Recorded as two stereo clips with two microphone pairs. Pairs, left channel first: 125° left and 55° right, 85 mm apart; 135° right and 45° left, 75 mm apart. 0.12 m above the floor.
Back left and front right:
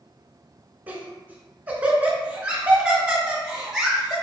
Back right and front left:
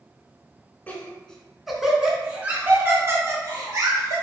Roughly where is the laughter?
Right.